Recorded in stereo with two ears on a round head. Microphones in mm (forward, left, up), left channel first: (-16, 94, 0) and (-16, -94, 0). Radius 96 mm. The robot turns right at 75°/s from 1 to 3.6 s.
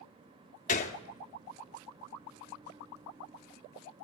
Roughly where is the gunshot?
Left.